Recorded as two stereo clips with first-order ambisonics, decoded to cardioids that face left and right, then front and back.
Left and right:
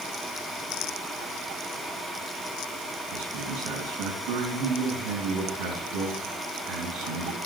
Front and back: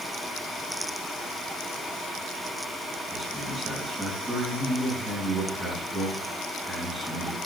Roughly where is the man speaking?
Right.